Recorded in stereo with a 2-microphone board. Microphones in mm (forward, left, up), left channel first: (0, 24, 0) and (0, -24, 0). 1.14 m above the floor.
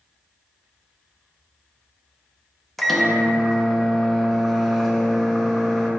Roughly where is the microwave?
Centre.